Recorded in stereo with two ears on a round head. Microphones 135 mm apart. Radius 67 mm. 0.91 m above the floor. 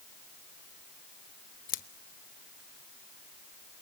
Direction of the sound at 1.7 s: 60° left (ahead or behind).